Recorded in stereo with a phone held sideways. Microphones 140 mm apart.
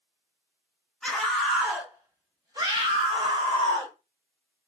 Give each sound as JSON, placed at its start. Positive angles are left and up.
{"t": 1.0, "sound": "a scream", "side_deg": 5, "distance_m": 1.1}